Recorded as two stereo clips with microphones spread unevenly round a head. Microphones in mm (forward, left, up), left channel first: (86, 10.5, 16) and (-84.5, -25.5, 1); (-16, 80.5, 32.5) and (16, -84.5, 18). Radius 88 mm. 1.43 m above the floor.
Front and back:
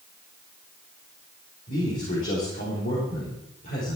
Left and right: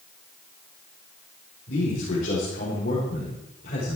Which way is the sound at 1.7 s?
60° left.